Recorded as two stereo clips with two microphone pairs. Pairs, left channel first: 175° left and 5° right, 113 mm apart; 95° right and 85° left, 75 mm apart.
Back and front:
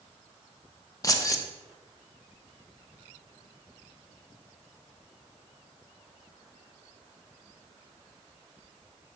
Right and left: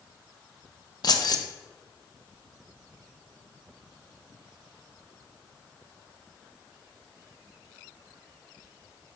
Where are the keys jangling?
125° right, 0.7 m.